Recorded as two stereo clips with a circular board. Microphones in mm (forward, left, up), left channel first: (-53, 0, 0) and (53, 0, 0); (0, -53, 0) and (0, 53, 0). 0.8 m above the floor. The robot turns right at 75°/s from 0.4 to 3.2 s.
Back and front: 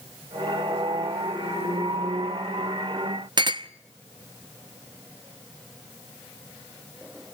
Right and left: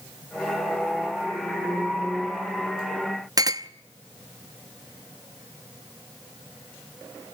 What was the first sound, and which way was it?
A clink, 40° left.